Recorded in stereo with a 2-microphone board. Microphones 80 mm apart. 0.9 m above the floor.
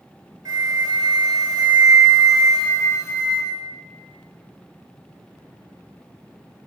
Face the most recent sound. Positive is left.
turn(degrees=-45)  # may be behind; listen again after turning